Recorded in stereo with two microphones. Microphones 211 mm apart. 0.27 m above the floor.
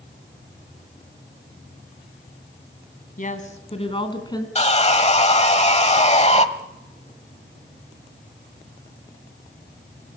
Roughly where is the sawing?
Left.